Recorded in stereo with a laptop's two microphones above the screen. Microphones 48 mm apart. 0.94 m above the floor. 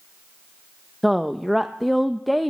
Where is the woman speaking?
Centre (ahead or behind), 0.5 m.